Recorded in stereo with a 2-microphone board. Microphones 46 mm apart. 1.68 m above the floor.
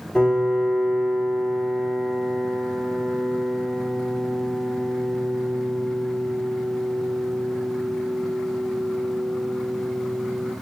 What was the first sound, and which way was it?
A piano, 15° left (ahead or behind).